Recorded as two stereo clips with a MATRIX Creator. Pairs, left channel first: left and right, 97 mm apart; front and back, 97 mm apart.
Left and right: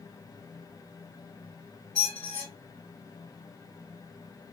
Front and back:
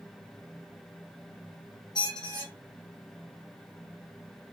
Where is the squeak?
25° left, 1.3 m.